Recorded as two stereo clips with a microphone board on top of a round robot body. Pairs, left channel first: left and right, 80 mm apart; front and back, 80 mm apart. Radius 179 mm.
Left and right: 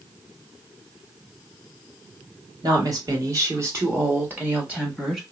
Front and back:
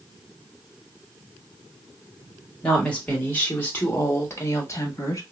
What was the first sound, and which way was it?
A woman speaking, 75° right.